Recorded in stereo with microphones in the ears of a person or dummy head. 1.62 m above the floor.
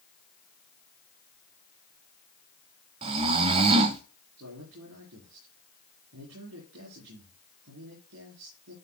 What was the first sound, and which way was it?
Snoring, 25° right (ahead or behind).